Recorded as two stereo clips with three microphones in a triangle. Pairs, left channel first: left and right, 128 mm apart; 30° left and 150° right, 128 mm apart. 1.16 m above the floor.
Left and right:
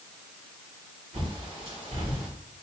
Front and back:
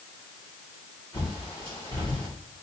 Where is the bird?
50° right, 2.5 m.